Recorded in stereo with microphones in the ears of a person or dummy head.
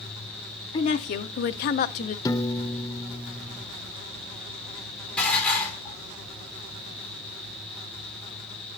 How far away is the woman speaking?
About 0.6 m.